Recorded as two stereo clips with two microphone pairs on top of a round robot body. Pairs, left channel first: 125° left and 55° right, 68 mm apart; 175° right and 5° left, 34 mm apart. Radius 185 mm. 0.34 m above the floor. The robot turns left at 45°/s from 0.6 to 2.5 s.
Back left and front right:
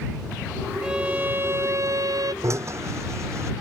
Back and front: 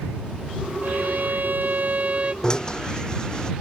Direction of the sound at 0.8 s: 25° left.